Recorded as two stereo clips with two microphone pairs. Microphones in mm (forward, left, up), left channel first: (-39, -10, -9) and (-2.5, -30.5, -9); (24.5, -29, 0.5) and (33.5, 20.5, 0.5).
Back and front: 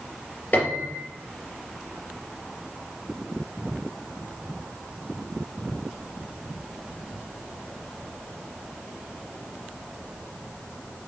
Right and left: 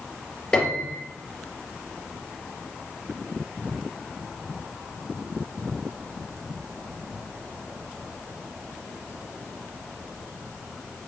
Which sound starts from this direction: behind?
A piano, at 0.5 s.